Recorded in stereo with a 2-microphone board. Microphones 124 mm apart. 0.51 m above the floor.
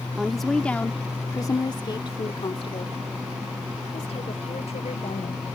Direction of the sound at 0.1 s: 5° right (ahead or behind).